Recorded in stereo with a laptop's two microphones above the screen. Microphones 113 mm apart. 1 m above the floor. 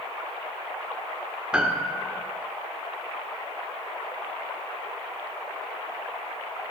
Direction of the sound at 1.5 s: 10° right (ahead or behind).